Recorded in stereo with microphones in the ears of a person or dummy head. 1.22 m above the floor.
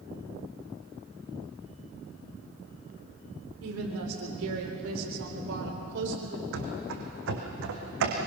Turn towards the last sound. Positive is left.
turn(degrees=-65)  # may be behind; listen again after turning